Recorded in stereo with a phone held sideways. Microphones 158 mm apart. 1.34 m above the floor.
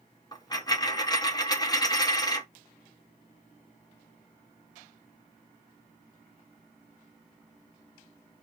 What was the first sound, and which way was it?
A dropped coin, 25° left (ahead or behind).